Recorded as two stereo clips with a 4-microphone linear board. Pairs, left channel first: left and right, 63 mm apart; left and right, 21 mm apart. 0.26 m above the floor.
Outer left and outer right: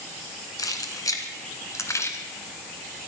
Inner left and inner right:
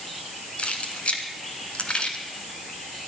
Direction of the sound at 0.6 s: 70° left (ahead or behind).